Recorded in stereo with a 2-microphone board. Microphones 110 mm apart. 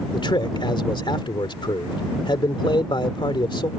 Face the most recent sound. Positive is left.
turn(degrees=45)  # may be behind; listen again after turning